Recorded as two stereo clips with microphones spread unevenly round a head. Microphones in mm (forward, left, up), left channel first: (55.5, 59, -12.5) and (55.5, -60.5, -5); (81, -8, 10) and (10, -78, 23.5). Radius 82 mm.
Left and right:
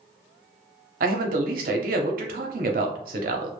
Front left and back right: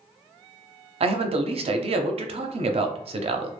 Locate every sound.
1.0 s a man speaking: 110° right, 0.5 m